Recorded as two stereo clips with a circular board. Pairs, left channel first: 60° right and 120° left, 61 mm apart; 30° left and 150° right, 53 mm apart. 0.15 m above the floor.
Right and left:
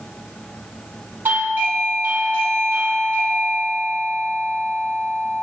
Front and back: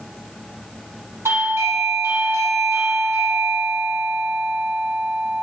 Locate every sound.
1.2 s a doorbell: straight behind, 4.5 m